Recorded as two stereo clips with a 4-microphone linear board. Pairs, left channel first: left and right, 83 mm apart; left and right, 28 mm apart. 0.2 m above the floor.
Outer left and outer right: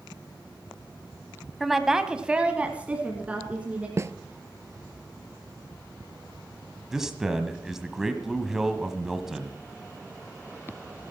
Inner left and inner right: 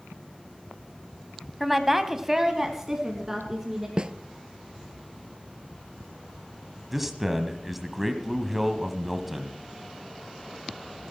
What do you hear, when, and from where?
1.6 s a woman speaking: centre (ahead or behind), 1.1 m; by 3.9 s 15° right (ahead or behind), 2.5 m
4.0 s a snare drum: 35° right (ahead or behind), 0.5 m
6.9 s a man speaking: 5° right (ahead or behind), 1.2 m